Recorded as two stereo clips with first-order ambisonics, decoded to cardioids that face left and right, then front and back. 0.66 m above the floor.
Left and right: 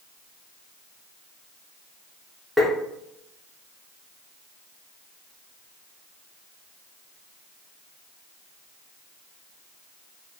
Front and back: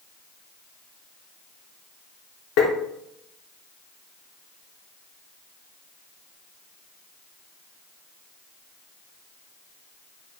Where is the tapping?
Straight ahead, 0.8 m.